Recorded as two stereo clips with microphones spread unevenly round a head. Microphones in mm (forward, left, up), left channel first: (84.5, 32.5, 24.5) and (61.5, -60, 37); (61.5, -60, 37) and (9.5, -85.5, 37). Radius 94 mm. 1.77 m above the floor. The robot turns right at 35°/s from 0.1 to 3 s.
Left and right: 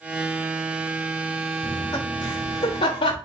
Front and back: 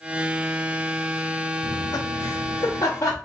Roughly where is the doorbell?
I don't hear a doorbell.